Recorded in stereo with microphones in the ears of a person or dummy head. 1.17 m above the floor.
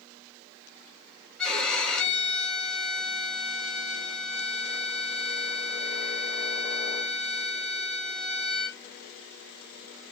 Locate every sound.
1.4 s a violin: centre (ahead or behind), 1.2 m